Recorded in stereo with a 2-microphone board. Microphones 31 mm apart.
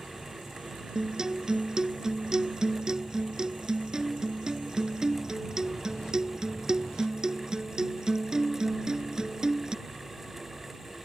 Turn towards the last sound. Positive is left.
turn(degrees=-20)  # may be behind; listen again after turning